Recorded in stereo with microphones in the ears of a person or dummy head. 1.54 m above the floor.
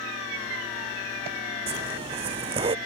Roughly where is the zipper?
Right.